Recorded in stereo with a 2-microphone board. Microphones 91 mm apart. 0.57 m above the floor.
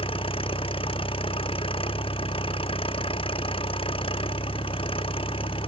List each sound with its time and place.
0.0 s an engine running: 90° left